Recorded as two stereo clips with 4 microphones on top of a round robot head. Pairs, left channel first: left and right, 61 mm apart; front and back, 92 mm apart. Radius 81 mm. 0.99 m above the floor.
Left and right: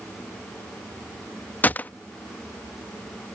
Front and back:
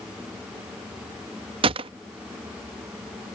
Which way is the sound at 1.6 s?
155° left.